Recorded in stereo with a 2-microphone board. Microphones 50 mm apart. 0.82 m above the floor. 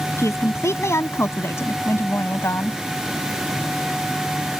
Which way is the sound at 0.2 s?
65° left (ahead or behind).